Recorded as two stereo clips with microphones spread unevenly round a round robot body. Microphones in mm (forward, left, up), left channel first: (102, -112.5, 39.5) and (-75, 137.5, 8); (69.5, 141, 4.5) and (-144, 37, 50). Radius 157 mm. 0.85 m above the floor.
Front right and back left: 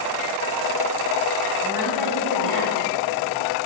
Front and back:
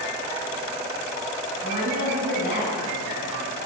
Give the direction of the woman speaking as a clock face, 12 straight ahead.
10 o'clock.